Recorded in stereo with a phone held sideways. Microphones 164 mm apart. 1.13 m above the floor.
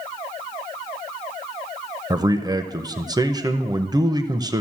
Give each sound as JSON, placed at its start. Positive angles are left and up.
{"t": 2.1, "sound": "a man speaking", "side_deg": -25, "distance_m": 0.6}